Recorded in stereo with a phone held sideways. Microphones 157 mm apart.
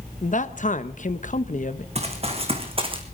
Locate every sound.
0.2 s a man speaking: 55° left (ahead or behind), 1.1 m
1.9 s running footsteps: 40° right (ahead or behind), 3 m; by 3.0 s 35° right (ahead or behind), 2.5 m